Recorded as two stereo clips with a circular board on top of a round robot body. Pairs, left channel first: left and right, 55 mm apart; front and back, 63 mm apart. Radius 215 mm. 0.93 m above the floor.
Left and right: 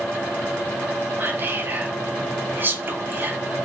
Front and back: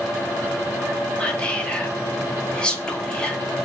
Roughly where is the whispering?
Ahead right.